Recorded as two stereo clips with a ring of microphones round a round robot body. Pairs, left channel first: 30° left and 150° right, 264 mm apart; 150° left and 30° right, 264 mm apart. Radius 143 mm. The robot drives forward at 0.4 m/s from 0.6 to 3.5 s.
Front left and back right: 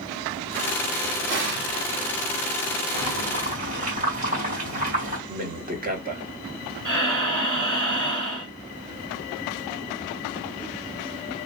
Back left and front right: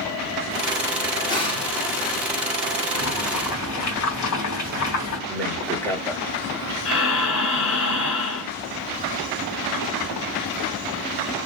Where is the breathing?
175° left, 1.9 m.